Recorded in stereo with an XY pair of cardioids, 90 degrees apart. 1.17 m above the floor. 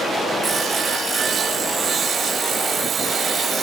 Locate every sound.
0.4 s sawing: 55° right, 1.0 m